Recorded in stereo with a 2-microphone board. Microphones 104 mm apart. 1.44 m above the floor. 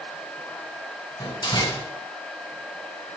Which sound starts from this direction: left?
A door slam, at 1.2 s.